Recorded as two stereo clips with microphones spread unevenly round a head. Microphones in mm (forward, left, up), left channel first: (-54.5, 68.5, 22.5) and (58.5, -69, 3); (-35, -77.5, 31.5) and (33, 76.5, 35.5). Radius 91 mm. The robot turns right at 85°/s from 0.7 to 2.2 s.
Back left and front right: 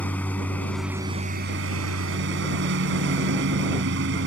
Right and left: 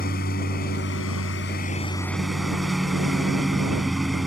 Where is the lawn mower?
150° right; by 4.3 s 25° right.